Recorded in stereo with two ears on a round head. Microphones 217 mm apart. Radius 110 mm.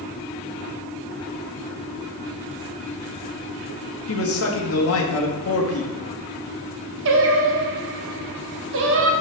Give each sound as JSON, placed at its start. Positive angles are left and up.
{"t": 4.1, "sound": "a man speaking", "side_deg": 65, "distance_m": 1.7}
{"t": 7.0, "sound": "singing", "side_deg": -50, "distance_m": 1.1}